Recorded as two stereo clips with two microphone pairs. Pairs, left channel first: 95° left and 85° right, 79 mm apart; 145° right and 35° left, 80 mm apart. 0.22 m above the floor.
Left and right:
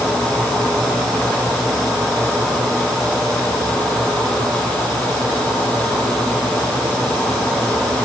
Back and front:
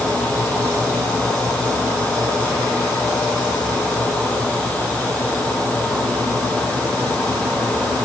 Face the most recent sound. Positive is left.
No sound to turn to.